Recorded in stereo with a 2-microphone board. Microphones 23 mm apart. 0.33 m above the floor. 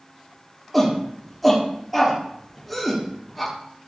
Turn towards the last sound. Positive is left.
turn(degrees=5)  # may be behind; listen again after turning